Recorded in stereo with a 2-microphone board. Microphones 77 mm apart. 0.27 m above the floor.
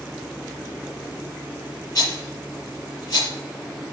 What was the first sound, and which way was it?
A rattle, 40° left (ahead or behind).